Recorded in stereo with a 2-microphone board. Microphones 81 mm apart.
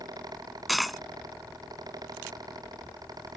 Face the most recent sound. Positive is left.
turn(degrees=0)  # may be behind; listen again after turning